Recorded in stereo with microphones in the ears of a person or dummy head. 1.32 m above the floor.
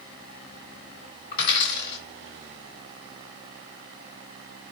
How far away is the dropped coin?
About 1.1 m.